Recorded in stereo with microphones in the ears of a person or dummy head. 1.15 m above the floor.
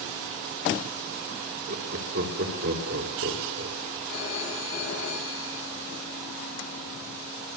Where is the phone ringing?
75° left (ahead or behind), 9.5 m.